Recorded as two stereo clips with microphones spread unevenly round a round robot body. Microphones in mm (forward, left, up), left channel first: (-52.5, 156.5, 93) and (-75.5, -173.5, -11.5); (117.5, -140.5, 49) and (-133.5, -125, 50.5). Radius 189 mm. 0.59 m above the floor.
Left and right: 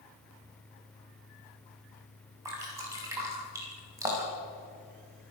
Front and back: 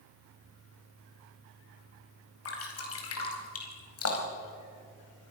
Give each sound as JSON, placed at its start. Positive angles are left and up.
{"t": 2.5, "sound": "dripping", "azimuth_deg": -15, "distance_m": 4.5}